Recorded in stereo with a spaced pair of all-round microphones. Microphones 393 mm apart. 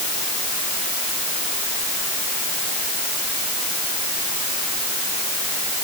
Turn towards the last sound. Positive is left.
No sound to turn to.